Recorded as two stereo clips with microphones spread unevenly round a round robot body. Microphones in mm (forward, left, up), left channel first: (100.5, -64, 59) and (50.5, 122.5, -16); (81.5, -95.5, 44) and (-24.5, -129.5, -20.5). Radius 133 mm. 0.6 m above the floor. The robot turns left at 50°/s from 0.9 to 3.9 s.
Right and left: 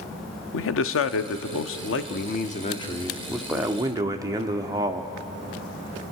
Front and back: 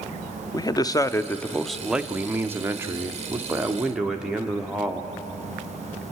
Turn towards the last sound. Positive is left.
turn(degrees=145)